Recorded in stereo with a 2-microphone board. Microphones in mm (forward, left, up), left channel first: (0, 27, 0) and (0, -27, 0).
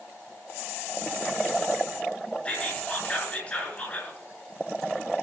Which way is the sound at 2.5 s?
25° left (ahead or behind).